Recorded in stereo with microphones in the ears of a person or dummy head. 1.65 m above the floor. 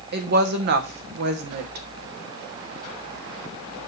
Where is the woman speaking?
55° right (ahead or behind), 1.3 m.